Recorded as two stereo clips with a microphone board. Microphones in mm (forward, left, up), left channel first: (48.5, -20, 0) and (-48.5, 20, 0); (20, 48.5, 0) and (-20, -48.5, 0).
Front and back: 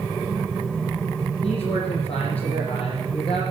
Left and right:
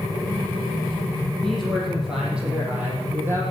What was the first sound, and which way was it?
A man speaking, 20° right.